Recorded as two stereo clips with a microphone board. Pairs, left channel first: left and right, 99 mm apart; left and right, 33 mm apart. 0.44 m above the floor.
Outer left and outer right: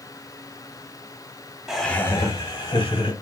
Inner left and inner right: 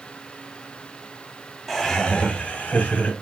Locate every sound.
1.7 s laughter: 5° right (ahead or behind), 0.8 m; by 3.1 s 55° left (ahead or behind), 1.9 m